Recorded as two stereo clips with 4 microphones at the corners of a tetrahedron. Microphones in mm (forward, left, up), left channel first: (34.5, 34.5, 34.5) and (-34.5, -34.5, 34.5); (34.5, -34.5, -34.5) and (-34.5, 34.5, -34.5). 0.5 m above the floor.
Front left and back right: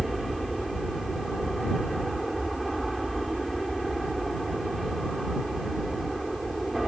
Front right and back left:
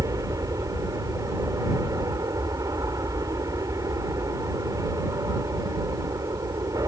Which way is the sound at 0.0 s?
135° left.